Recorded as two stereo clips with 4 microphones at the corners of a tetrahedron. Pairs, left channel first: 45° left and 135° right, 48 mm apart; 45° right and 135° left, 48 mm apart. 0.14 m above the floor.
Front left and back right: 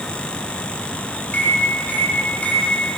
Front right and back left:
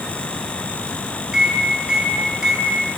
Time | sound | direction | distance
1.3 | a microwave | 70° left | 1.1 m